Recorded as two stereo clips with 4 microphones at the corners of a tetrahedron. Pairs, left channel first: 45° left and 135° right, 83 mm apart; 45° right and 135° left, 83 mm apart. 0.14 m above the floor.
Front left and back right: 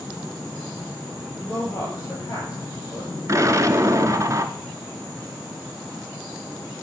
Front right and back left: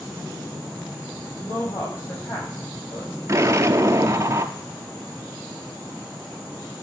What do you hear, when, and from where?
1.4 s a woman speaking: 5° right, 4.5 m
3.3 s an explosion: straight behind, 0.7 m